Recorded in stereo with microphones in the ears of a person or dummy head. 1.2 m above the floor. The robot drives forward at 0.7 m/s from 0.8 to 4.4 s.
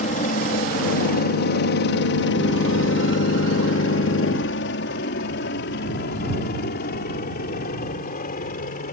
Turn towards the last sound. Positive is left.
turn(degrees=40)  # may be behind; listen again after turning